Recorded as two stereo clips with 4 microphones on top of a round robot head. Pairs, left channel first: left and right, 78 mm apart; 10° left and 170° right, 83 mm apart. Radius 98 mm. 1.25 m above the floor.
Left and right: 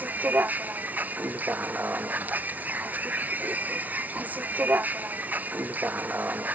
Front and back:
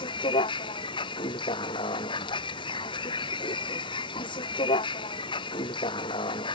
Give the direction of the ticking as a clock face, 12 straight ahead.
No ticking in this recording.